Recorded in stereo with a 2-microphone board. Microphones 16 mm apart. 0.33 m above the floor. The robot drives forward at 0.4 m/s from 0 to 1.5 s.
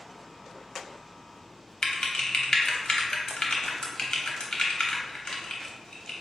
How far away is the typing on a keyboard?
About 0.8 m.